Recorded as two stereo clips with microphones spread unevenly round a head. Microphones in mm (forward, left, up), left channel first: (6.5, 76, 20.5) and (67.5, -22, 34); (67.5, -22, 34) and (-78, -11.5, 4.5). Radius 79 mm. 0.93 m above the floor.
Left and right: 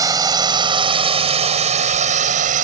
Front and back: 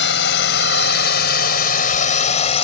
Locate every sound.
0.0 s a drone: straight ahead; by 2.6 s 55° right